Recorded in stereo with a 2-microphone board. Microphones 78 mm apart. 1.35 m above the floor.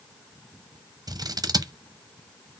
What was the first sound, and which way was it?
Scissors, 55° right (ahead or behind).